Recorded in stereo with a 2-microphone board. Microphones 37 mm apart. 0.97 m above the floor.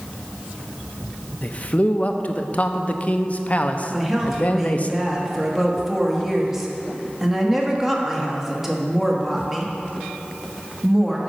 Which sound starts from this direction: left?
A man speaking, at 1.4 s.